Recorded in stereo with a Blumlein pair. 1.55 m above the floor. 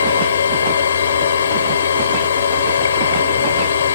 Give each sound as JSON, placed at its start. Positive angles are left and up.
{"t": 0.0, "sound": "a machine running", "azimuth_deg": 65}